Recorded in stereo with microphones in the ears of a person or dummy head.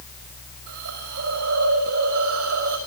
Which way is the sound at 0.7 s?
60° right (ahead or behind).